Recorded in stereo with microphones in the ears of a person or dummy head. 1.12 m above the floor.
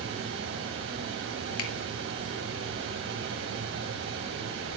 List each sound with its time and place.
0.0 s a fan: 60° right (ahead or behind), 3 m
1.6 s a finger snap: 80° left, 2.5 m